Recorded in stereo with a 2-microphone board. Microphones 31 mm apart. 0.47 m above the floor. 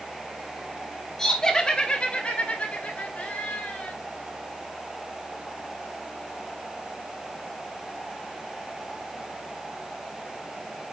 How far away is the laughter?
About 1.3 m.